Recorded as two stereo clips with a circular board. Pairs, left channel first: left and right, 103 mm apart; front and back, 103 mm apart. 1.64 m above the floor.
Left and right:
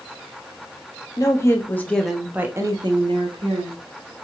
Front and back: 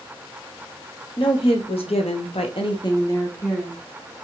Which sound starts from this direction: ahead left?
A woman speaking, at 1.2 s.